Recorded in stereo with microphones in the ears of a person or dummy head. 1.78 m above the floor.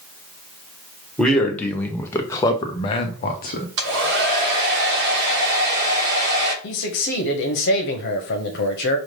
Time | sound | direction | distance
1.2 | a man speaking | 5° left (ahead or behind) | 1.3 m
3.8 | a hair dryer | 55° right (ahead or behind) | 1.2 m
6.6 | a man speaking | 60° left (ahead or behind) | 0.9 m